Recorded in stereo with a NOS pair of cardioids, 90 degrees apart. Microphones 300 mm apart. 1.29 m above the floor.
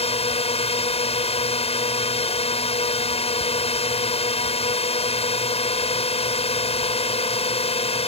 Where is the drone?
20° left.